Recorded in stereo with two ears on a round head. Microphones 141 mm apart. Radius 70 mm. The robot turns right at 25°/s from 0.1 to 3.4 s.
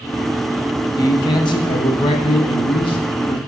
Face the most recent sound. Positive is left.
turn(degrees=110)